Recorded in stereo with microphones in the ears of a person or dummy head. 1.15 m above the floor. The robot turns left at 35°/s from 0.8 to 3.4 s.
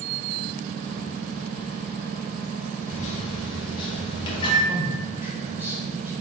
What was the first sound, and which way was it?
A microwave, 45° left (ahead or behind).